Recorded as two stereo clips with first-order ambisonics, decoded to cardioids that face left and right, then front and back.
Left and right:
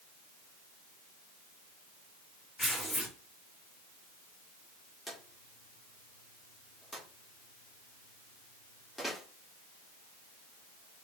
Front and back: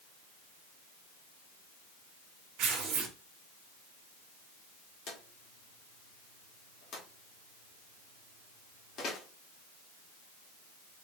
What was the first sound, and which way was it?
Tearing paper, 175° left.